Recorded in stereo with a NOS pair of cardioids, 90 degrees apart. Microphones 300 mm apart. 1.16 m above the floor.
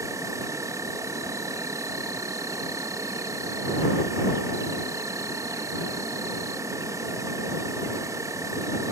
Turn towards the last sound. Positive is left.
turn(degrees=-10)